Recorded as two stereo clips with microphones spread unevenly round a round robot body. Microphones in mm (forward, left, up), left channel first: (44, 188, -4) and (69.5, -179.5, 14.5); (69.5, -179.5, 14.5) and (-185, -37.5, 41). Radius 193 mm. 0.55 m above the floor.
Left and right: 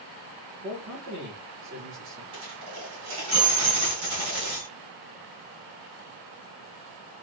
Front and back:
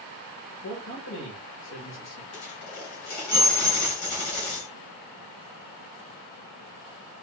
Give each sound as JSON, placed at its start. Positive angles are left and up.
{"t": 0.6, "sound": "a man speaking", "azimuth_deg": -35, "distance_m": 1.9}
{"t": 2.3, "sound": "a dropped coin", "azimuth_deg": -40, "distance_m": 2.5}